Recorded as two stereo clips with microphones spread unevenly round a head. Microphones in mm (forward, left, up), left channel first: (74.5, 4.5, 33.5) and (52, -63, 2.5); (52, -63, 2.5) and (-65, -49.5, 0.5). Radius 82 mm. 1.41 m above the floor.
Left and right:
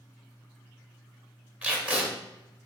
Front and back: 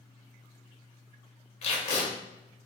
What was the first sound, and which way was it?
Tape being pulled, 40° right.